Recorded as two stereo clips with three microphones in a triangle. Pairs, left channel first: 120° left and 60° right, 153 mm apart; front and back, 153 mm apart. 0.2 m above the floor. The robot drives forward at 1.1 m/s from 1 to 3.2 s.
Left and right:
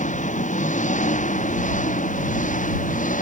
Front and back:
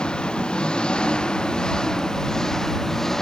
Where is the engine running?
85° left.